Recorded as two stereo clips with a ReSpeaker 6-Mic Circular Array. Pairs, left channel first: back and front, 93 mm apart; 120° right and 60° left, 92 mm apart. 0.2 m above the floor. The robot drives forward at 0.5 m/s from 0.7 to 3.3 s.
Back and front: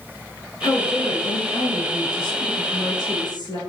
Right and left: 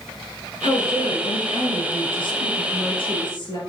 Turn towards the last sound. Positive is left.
turn(degrees=-150)